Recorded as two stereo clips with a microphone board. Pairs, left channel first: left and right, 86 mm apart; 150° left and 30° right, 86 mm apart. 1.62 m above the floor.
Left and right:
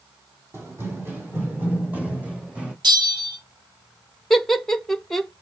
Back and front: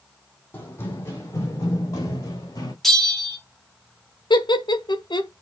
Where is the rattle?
No rattle in this recording.